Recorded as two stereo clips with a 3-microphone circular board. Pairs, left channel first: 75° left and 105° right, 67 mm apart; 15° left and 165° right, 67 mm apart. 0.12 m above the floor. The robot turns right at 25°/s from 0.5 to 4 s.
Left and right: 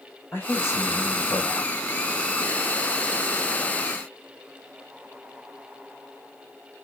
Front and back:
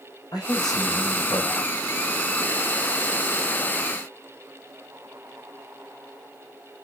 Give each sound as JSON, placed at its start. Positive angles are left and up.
{"t": 0.3, "sound": "a man speaking", "azimuth_deg": 20, "distance_m": 6.5}